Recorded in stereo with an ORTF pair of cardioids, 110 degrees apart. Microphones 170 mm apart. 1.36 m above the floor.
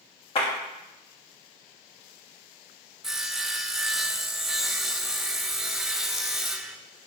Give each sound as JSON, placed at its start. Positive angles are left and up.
{"t": 0.3, "sound": "a clap", "azimuth_deg": 35, "distance_m": 2.5}
{"t": 3.0, "sound": "sawing", "azimuth_deg": 0, "distance_m": 0.5}